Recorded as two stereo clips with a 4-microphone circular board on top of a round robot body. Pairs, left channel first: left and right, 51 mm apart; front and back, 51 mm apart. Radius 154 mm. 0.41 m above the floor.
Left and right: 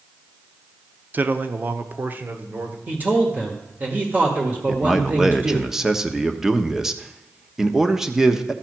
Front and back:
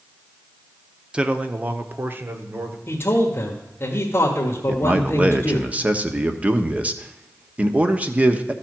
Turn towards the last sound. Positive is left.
turn(degrees=-165)